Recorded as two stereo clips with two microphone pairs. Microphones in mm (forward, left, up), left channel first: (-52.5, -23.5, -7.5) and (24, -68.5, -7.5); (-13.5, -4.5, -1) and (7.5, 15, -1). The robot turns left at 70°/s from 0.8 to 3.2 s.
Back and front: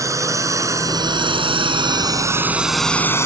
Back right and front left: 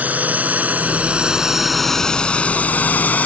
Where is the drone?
20° left; by 3.3 s 150° right.